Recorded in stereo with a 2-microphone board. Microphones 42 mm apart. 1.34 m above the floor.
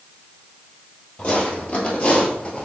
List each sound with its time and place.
1.2 s footsteps: 30° left (ahead or behind), 1.9 m; by 2.6 s 20° left (ahead or behind), 1.4 m